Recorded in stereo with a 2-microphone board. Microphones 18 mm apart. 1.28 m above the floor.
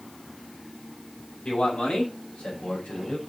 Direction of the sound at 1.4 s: 80° left.